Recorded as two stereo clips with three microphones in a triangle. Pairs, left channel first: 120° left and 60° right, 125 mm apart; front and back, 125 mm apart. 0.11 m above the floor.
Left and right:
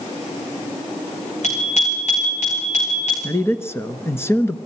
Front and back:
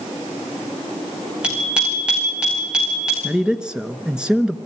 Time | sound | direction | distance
1.4 | a bicycle bell | 100° left | 6.5 m
3.2 | a man speaking | 110° left | 1.1 m